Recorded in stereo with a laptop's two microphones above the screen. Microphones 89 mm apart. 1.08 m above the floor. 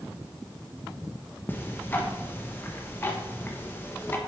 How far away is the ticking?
About 1.0 m.